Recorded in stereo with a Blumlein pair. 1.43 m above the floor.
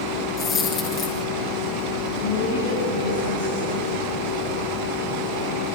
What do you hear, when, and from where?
0.4 s a dropped coin: 30° left, 6 m
2.2 s a woman speaking: 65° left, 8.5 m